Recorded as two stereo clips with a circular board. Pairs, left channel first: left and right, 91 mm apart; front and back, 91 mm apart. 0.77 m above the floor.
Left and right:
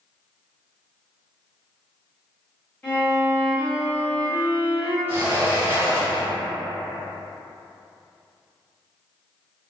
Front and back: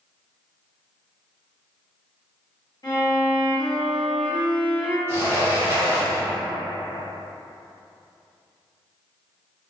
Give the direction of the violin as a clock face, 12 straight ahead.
11 o'clock.